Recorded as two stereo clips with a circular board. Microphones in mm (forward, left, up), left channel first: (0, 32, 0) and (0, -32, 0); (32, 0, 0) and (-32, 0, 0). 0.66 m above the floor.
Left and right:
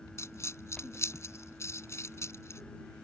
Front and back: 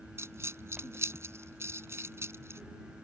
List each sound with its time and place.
0.2 s a dropped coin: 135° left